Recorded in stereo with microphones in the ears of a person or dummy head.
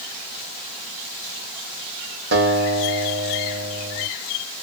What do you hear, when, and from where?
2.3 s a guitar: 85° right, 2.5 m